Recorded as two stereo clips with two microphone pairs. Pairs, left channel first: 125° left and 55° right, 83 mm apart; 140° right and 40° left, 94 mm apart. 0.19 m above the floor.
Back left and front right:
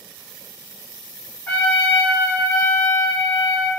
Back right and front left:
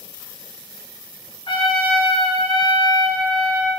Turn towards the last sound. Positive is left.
turn(degrees=-165)